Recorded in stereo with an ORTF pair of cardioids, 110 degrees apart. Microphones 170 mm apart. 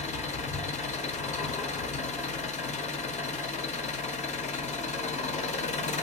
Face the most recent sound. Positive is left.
turn(degrees=40)